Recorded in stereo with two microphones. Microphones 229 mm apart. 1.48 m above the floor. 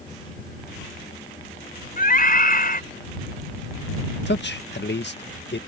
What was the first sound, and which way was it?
A scream, 40° left (ahead or behind).